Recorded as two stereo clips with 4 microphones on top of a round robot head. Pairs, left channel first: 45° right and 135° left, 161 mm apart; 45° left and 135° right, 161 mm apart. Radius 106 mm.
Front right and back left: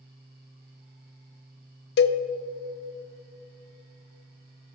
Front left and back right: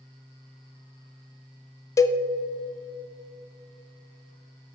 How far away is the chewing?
No chewing in this recording.